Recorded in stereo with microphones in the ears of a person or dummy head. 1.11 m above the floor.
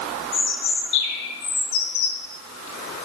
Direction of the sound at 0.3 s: 70° left (ahead or behind).